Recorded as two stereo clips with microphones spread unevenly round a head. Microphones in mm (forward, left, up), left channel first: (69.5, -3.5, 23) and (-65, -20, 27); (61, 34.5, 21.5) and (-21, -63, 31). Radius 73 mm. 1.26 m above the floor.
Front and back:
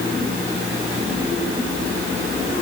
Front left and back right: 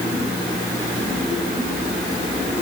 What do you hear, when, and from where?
Only background noise.